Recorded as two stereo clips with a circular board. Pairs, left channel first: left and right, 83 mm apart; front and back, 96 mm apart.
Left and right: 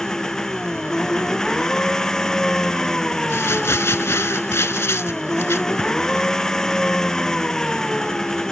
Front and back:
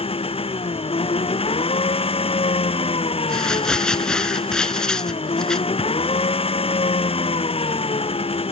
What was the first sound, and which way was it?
An engine running, 5° left.